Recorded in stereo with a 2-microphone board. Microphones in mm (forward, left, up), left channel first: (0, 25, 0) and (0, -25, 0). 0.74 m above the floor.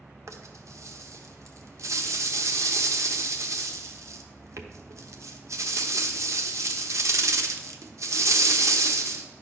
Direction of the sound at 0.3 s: 75° right (ahead or behind).